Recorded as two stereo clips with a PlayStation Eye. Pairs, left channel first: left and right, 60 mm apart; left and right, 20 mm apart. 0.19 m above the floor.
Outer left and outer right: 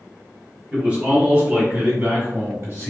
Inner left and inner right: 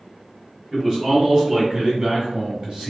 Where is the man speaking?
15° right (ahead or behind), 1.5 m; by 2.9 s 45° right (ahead or behind), 1.9 m.